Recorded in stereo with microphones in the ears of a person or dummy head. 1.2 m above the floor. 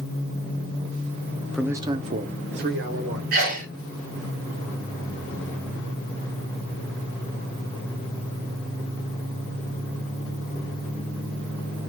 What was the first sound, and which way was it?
A man speaking, 5° left (ahead or behind).